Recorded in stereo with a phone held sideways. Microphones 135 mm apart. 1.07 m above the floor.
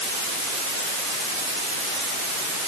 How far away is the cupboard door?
No cupboard door in this recording.